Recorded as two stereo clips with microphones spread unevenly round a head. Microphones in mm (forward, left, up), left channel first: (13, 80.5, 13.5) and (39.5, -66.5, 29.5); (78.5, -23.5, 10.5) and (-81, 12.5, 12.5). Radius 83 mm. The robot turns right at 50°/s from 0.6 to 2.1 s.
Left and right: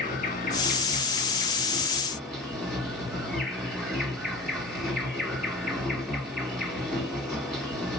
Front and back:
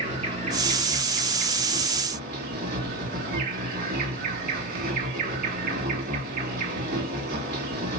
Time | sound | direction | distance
0.0 | an insect | 110° left | 2 m